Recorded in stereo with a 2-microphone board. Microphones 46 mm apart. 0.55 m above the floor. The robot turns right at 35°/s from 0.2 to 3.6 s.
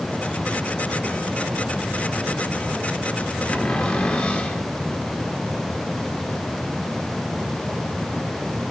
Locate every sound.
3.5 s a cupboard door: 30° left (ahead or behind), 1.6 m; by 4.6 s 25° left (ahead or behind), 1.6 m